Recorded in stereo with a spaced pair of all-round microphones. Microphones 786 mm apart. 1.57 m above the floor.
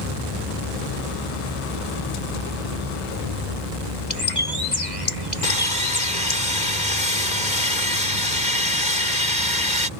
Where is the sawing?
70° left (ahead or behind).